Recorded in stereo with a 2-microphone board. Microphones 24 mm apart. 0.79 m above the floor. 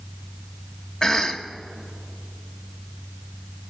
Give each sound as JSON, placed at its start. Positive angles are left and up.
{"t": 1.0, "sound": "a cough", "side_deg": 20, "distance_m": 0.8}